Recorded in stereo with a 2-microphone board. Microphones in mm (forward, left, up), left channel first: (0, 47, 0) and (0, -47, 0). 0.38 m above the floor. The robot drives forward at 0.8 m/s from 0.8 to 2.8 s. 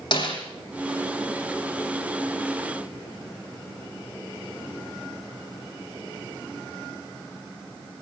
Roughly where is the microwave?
No microwave in this recording.